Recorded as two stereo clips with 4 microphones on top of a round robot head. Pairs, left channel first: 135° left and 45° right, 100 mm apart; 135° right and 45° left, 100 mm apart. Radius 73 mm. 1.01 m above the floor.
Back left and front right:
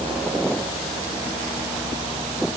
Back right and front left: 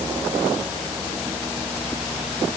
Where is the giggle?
No giggle in this recording.